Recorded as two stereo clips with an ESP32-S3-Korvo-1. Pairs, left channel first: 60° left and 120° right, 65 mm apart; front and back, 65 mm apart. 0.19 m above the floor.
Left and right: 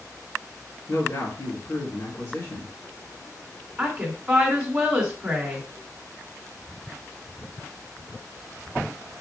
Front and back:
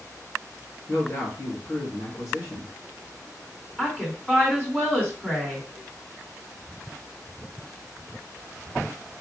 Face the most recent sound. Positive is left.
turn(degrees=-60)